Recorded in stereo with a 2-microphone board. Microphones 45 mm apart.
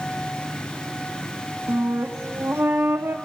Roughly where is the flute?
Right.